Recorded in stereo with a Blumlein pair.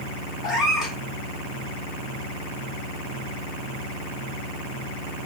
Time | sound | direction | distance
0.4 | a cat meowing | 15° left | 1.8 m